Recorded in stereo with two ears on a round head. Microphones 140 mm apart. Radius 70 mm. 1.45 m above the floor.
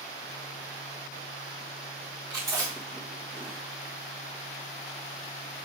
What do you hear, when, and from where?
2.3 s chewing: 25° right (ahead or behind), 1.9 m